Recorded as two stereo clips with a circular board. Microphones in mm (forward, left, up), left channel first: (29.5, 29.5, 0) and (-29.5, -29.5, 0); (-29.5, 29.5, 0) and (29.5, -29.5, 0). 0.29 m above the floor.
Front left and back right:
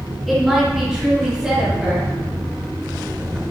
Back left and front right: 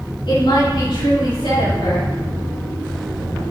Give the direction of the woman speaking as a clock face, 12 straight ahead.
7 o'clock.